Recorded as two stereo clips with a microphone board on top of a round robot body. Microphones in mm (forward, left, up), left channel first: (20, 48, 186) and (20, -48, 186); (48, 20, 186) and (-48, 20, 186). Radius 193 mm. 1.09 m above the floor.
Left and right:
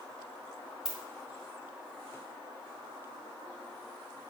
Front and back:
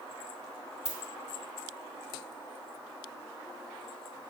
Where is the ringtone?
5° right, 2.5 m.